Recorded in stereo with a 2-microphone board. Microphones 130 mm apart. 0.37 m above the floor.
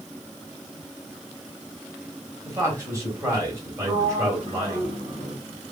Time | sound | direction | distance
2.5 | a man speaking | 25° right (ahead or behind) | 1.7 m
3.9 | a sliding door | 50° right (ahead or behind) | 1.5 m